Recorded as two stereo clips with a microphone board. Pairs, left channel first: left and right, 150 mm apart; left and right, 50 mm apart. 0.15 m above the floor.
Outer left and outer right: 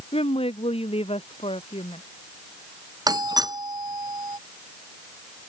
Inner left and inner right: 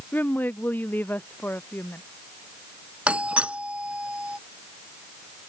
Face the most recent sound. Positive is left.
turn(degrees=-25)  # may be behind; listen again after turning